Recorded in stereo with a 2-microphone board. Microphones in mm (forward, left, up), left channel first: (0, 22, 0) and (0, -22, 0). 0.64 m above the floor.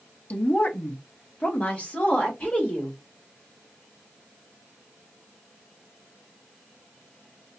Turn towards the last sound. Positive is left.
turn(degrees=25)  # may be behind; listen again after turning